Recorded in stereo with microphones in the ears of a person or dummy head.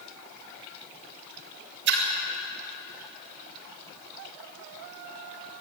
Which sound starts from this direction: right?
A splash, at 1.9 s.